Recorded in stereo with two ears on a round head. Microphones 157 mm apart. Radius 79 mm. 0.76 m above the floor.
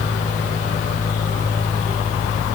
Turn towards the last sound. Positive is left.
No sound to turn to.